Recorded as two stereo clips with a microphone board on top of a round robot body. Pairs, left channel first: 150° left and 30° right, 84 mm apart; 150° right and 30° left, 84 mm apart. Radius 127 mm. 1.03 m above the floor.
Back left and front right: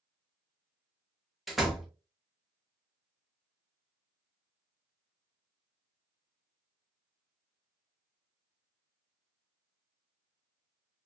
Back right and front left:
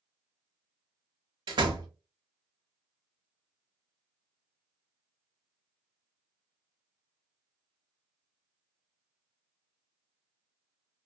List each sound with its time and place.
1.5 s a door slam: 60° left, 0.7 m